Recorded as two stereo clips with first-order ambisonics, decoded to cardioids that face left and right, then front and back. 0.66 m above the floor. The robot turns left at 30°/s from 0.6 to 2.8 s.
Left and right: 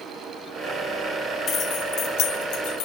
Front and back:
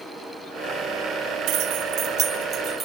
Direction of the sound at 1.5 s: 150° left.